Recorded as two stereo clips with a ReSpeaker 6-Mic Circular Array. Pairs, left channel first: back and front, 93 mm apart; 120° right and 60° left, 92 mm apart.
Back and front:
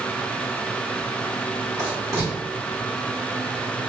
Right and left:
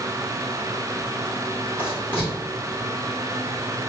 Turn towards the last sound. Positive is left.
turn(degrees=-55)